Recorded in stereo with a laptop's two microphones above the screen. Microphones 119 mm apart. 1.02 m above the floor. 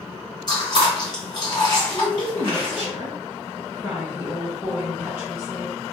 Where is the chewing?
35° left (ahead or behind), 1.2 m.